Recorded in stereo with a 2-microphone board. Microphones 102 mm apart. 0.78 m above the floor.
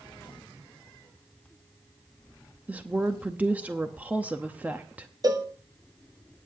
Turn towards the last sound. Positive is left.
turn(degrees=-40)  # may be behind; listen again after turning